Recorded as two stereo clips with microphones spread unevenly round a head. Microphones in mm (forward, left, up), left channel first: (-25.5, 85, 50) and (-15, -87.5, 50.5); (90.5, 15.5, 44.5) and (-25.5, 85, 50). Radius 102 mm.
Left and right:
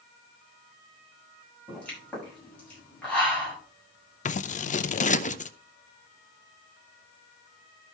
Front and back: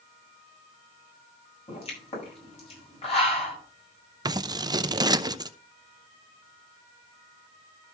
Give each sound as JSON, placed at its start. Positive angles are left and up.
{"t": 1.7, "sound": "a pop", "azimuth_deg": 10, "distance_m": 7.5}
{"t": 4.2, "sound": "scissors", "azimuth_deg": 100, "distance_m": 0.7}